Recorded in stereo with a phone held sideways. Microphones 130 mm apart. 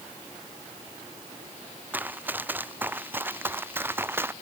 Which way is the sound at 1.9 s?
15° right (ahead or behind).